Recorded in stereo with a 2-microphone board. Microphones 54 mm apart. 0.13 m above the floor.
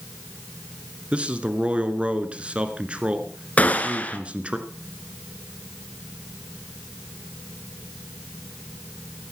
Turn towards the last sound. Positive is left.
turn(degrees=30)  # may be behind; listen again after turning